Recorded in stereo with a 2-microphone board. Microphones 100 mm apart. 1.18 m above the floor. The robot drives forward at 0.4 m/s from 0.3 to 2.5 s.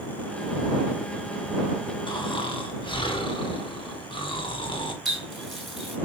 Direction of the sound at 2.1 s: 50° left (ahead or behind).